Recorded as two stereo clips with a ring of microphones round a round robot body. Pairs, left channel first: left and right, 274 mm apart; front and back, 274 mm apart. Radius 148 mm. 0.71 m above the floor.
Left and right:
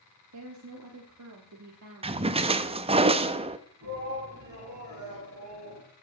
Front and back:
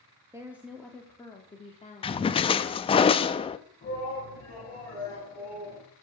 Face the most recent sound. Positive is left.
turn(degrees=-70)